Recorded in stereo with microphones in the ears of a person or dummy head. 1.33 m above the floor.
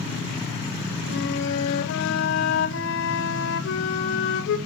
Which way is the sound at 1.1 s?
70° left (ahead or behind).